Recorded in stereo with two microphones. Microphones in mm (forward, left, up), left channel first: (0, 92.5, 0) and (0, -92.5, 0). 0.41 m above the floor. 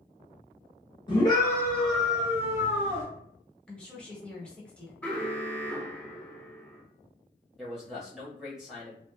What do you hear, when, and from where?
1.1 s a scream: 25° left (ahead or behind), 0.9 m; by 3.0 s 30° right (ahead or behind), 1.1 m
3.7 s a woman speaking: 5° left (ahead or behind), 0.9 m
5.0 s an alarm: 5° left (ahead or behind), 0.7 m
7.6 s a man speaking: 5° right (ahead or behind), 1.4 m